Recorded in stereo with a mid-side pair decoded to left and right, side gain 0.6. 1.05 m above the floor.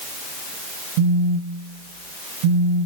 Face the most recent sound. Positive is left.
turn(degrees=-70)